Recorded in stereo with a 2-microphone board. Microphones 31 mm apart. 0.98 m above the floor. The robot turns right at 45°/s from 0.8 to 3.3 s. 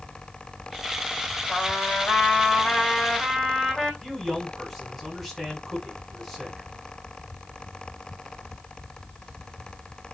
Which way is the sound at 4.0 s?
Centre (ahead or behind).